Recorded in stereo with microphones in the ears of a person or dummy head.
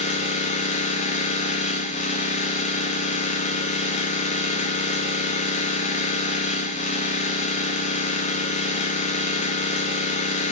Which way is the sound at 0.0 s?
40° left (ahead or behind).